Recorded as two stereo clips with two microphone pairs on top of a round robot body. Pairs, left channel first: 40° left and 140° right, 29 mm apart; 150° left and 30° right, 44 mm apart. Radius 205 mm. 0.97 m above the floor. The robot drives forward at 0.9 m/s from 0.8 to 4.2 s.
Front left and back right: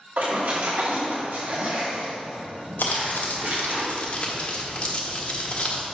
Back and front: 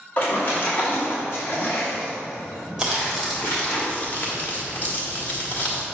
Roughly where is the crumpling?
Ahead left.